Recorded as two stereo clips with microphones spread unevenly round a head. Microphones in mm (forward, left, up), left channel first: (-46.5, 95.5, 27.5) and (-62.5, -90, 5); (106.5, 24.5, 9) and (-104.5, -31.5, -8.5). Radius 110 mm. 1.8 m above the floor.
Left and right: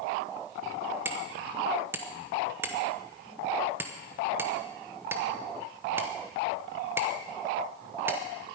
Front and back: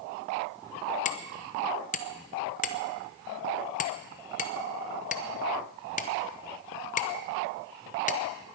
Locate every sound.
1.1 s hammering: 10° right, 0.9 m